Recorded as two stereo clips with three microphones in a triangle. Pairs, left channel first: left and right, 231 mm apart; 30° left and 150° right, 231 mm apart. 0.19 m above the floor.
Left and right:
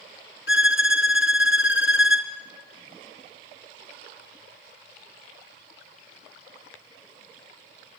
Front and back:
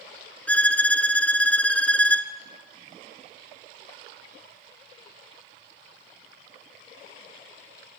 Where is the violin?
115° left, 1.1 m.